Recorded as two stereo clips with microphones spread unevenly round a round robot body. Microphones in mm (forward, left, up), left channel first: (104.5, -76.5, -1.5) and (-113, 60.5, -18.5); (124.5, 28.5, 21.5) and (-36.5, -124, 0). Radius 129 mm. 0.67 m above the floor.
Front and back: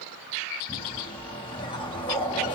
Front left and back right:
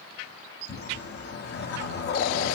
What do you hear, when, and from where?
0.7 s a whoosh: 35° left, 0.8 m